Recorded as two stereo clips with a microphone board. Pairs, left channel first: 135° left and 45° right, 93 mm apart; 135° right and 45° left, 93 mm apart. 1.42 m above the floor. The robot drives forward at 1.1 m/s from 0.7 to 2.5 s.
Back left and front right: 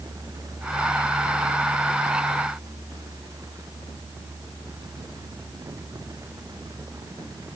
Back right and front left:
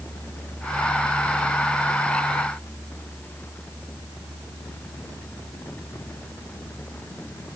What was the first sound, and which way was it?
Only background noise.